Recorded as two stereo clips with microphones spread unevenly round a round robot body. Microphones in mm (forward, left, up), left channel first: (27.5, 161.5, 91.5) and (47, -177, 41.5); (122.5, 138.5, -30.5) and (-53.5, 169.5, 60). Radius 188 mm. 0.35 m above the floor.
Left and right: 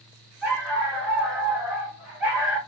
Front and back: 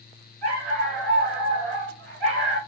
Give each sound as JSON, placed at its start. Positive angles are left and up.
{"t": 0.4, "sound": "a dog barking", "azimuth_deg": -175, "distance_m": 1.4}